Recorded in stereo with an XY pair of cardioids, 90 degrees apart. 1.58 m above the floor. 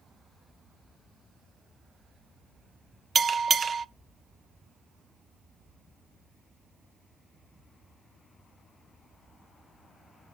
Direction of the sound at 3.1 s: 45° right.